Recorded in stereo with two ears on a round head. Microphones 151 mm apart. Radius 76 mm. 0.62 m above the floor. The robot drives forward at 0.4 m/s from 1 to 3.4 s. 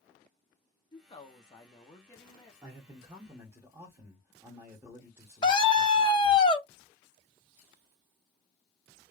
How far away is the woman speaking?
About 0.7 m.